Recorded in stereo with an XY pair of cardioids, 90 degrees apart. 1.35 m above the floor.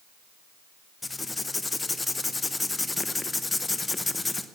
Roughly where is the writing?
Ahead.